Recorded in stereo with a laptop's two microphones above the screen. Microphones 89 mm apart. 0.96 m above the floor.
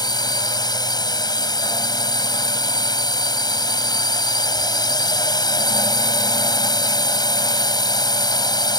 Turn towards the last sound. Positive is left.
turn(degrees=50)  # may be behind; listen again after turning